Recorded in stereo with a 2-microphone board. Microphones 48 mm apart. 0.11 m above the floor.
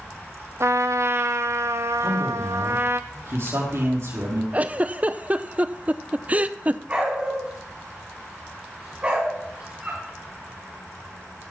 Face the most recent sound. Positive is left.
turn(degrees=-30)  # may be behind; listen again after turning